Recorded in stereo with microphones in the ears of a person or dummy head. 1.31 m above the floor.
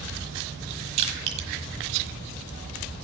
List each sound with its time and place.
1.0 s crushing: 35° right (ahead or behind), 1.4 m